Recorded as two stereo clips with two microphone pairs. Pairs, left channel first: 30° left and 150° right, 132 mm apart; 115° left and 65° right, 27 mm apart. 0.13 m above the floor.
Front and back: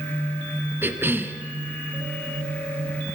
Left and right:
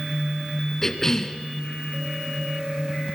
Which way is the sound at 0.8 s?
160° left.